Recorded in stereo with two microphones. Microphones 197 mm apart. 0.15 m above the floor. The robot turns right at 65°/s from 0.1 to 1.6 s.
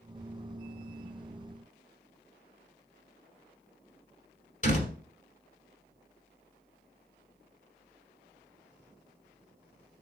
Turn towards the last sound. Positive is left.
turn(degrees=40)  # may be behind; listen again after turning